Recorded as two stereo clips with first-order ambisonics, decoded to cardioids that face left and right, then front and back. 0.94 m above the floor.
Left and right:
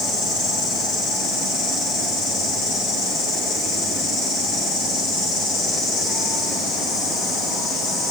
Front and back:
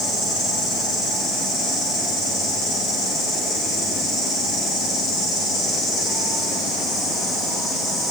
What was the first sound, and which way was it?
An insect, 40° left.